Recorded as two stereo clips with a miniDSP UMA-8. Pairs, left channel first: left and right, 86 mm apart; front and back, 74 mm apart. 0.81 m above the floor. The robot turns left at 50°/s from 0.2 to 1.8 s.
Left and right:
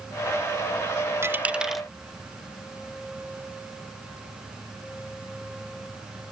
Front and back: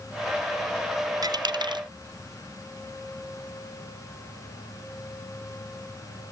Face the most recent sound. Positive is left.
turn(degrees=180)